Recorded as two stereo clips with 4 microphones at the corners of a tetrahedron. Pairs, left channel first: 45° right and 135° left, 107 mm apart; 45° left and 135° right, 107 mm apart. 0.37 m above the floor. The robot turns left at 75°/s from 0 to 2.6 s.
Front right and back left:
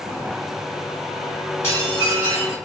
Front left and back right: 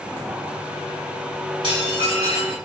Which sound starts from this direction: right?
Dishes clattering, at 1.6 s.